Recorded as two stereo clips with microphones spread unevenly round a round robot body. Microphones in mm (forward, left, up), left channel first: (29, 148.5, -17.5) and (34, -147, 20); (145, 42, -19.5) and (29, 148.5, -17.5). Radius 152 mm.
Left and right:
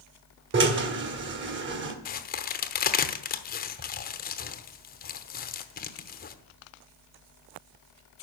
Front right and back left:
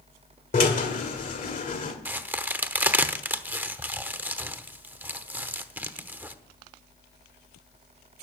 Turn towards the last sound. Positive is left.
turn(degrees=65)